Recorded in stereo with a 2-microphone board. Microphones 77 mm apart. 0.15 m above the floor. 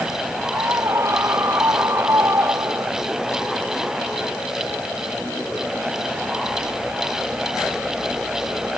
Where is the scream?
35° right (ahead or behind).